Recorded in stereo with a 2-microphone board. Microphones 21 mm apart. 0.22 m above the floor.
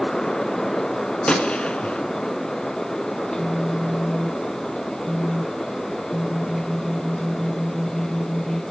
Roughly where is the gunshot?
Left.